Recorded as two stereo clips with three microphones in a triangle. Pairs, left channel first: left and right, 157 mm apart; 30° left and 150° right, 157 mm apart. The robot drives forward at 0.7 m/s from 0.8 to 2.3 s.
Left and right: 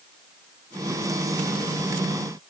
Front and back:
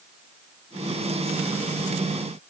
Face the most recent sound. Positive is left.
No sound to turn to.